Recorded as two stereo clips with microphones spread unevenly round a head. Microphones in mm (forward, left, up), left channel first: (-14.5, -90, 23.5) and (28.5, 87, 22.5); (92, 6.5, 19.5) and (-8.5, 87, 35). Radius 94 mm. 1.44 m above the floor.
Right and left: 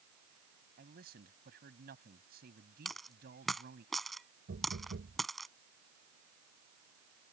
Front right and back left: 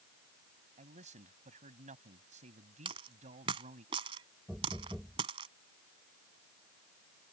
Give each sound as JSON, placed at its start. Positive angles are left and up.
{"t": 0.8, "sound": "a man speaking", "azimuth_deg": 120}
{"t": 2.9, "sound": "a dropped coin", "azimuth_deg": 170}
{"t": 4.5, "sound": "knocking", "azimuth_deg": 50}